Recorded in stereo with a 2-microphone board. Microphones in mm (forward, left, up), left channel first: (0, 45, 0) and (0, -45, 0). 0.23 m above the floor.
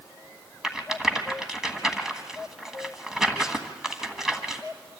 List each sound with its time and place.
0.6 s a rattle: 5° right (ahead or behind), 1.5 m